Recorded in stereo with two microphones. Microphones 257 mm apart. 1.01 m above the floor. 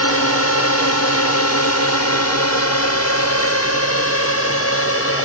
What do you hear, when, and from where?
0.0 s a drone: 65° left (ahead or behind); by 5.2 s 55° left (ahead or behind)